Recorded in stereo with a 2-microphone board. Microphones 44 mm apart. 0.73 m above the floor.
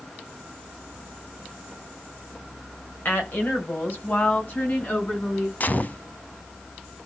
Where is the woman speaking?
55° left (ahead or behind), 3 m; by 5.5 s 50° left (ahead or behind), 6.5 m.